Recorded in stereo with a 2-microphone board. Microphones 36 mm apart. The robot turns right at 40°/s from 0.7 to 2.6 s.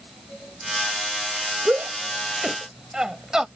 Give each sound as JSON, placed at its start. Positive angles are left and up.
{"t": 1.6, "sound": "a shout", "side_deg": -55}